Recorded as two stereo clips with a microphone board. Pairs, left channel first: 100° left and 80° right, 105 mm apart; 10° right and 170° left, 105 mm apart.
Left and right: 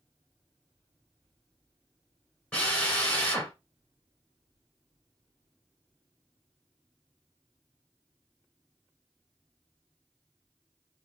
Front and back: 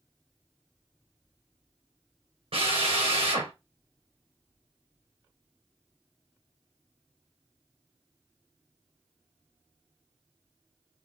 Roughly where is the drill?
Behind.